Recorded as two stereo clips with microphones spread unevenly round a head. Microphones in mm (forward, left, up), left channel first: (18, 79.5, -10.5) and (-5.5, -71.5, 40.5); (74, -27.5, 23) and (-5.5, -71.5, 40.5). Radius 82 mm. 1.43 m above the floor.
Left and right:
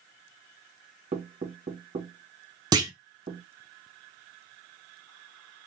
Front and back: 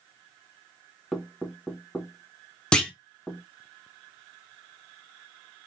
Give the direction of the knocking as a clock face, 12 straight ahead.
2 o'clock.